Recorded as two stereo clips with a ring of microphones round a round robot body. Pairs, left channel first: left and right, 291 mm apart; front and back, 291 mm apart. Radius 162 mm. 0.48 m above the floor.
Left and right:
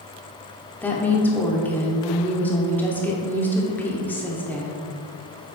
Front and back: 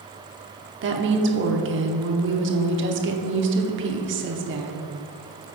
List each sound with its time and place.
0.8 s a woman speaking: 170° left, 0.9 m